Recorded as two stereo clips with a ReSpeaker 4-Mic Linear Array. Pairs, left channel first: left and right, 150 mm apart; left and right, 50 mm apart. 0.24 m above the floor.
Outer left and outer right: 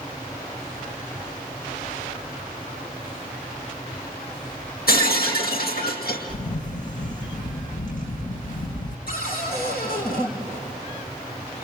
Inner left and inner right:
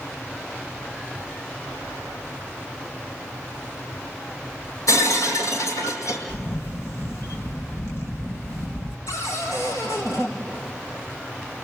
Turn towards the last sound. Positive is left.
turn(degrees=75)  # may be behind; listen again after turning